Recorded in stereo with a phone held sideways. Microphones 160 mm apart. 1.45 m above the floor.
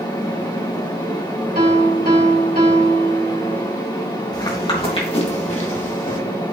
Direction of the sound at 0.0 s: 30° left (ahead or behind).